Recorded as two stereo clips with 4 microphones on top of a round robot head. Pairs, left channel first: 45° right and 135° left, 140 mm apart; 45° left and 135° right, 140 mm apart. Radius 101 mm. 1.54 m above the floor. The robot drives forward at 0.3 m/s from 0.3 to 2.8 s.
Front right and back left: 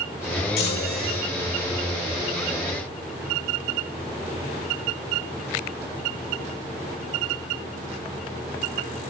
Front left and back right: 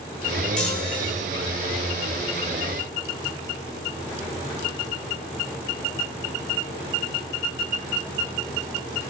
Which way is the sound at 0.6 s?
40° right.